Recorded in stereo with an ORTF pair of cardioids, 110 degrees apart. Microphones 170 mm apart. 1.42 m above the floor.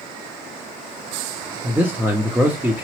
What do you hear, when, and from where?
1.6 s a man speaking: 10° right, 0.6 m